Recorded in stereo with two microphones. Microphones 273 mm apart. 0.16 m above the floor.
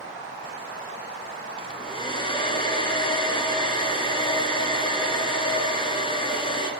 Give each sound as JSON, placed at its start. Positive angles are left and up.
{"t": 1.6, "sound": "a hair dryer", "side_deg": 20, "distance_m": 1.0}